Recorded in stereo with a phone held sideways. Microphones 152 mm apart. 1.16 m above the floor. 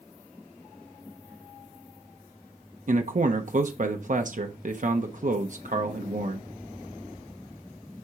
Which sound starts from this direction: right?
A man speaking, at 2.9 s.